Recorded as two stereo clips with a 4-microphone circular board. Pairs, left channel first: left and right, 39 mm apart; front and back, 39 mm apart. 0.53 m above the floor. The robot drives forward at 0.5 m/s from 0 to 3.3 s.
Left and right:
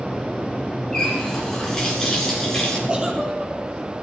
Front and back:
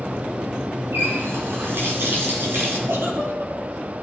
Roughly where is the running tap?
Behind.